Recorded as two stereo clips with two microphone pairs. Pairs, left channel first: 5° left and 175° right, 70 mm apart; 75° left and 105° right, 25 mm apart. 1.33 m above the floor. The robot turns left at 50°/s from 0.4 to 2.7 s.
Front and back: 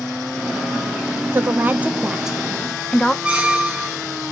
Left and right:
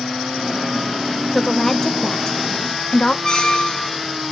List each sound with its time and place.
1.3 s a woman speaking: 155° left, 0.5 m; by 3.1 s 90° left, 0.5 m
3.2 s a squeak: 125° left, 0.7 m